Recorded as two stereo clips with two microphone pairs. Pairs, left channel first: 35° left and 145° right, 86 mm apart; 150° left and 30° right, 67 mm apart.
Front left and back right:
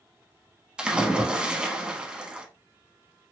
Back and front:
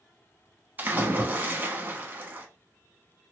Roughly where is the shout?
No shout in this recording.